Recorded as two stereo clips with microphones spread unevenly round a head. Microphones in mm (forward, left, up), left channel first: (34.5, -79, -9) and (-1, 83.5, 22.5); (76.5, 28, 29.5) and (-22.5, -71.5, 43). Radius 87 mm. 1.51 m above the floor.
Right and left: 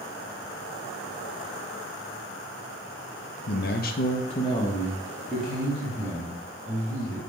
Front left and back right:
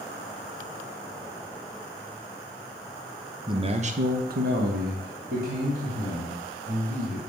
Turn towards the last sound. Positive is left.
turn(degrees=-175)